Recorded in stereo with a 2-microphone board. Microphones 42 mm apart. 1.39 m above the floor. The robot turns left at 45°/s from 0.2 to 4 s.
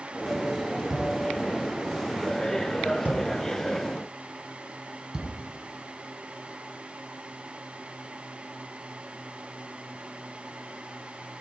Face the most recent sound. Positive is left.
turn(degrees=-20)  # may be behind; listen again after turning